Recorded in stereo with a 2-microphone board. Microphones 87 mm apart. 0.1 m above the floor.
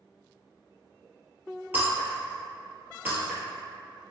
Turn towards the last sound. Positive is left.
turn(degrees=-25)  # may be behind; listen again after turning